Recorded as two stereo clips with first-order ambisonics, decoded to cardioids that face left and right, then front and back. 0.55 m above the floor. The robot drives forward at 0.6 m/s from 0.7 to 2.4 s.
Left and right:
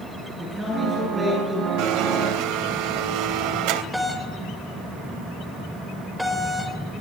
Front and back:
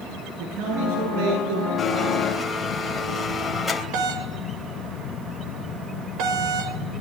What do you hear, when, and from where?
0.4 s a man speaking: 170° right, 9 m
1.8 s a blender: 75° right, 3 m; by 3.8 s 80° right, 3 m
3.9 s a doorbell: 175° right, 3.5 m